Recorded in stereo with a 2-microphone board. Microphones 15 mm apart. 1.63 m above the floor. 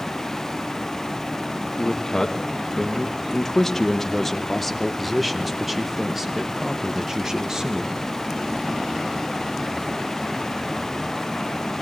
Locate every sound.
1.8 s a man speaking: 45° left (ahead or behind), 2.5 m; by 8.0 s 40° right (ahead or behind), 2 m